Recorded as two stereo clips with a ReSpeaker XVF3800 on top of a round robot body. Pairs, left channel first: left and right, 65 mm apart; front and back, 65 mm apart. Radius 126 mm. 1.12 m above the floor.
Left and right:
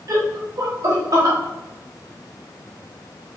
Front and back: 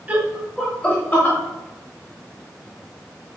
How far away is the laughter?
About 1.3 m.